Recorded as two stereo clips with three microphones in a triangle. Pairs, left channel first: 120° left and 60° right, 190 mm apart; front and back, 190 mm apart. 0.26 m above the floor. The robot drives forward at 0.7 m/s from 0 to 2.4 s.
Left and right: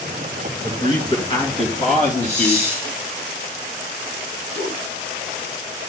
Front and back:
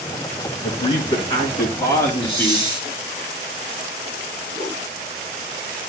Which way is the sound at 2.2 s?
5° right.